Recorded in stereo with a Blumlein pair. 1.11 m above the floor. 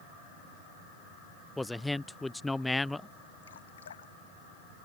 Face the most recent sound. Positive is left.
turn(degrees=65)